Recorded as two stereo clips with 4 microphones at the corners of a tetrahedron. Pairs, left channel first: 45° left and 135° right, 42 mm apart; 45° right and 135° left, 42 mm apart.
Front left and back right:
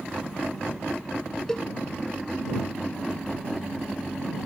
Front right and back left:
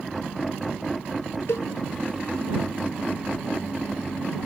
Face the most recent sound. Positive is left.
turn(degrees=-30)